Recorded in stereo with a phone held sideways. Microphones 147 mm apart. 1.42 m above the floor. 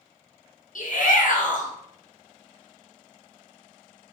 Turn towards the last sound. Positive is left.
turn(degrees=60)  # may be behind; listen again after turning